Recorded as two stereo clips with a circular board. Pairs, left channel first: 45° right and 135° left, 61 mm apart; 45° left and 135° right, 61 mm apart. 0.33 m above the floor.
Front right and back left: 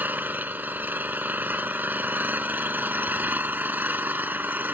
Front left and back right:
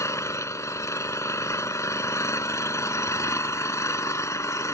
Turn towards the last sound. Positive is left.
turn(degrees=75)